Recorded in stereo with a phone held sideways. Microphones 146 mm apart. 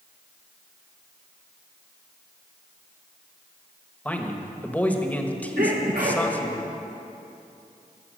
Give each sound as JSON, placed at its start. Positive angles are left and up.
{"t": 4.0, "sound": "a man speaking", "side_deg": 10, "distance_m": 1.0}
{"t": 5.6, "sound": "a sneeze", "side_deg": -70, "distance_m": 1.3}